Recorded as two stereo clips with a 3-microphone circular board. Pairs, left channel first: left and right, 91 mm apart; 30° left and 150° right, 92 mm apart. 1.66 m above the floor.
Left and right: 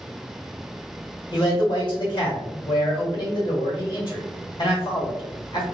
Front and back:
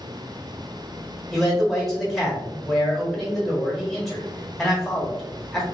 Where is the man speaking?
120° left, 1.4 m.